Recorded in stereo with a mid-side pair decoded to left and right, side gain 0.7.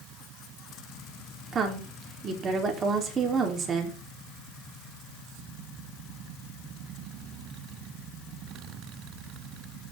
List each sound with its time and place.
1.5 s a woman speaking: 30° right, 4 m